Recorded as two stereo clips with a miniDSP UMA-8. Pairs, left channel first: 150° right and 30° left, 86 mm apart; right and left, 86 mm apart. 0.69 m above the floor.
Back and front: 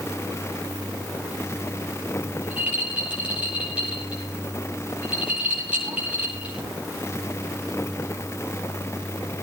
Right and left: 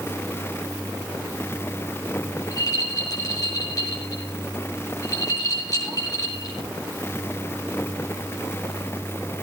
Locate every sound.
2.4 s a rattle: 45° right, 9 m